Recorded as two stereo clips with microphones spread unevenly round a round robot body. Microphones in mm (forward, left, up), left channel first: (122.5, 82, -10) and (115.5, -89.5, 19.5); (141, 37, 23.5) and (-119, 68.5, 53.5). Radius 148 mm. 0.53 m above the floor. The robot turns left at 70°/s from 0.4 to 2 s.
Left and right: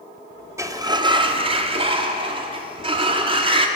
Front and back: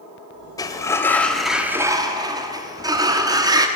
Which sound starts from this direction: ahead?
A sliding door, at 0.6 s.